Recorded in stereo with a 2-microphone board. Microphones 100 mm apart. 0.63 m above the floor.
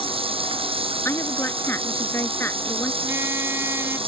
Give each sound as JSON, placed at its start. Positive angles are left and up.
{"t": 0.0, "sound": "running water", "side_deg": -70}
{"t": 1.1, "sound": "a woman speaking", "side_deg": 25}
{"t": 3.0, "sound": "a car horn", "side_deg": -25}